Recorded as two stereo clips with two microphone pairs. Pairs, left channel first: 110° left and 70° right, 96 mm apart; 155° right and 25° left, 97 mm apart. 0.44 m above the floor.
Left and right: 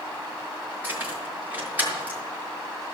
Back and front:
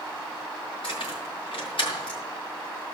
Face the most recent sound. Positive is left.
turn(degrees=-140)